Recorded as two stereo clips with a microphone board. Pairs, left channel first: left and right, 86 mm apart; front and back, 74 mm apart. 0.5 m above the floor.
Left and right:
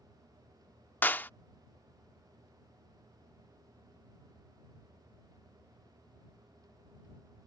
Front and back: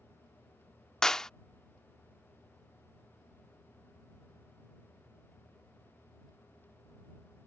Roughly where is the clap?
Left.